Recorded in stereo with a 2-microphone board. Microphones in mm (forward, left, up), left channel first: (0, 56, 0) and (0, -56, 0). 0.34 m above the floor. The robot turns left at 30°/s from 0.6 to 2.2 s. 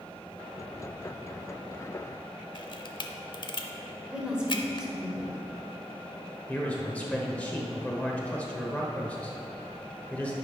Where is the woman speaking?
10° right (ahead or behind), 1.4 m.